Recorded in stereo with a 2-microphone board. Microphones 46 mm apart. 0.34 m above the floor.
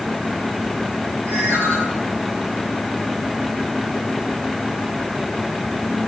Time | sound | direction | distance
1.3 | a ringtone | 70° right (ahead or behind) | 9 m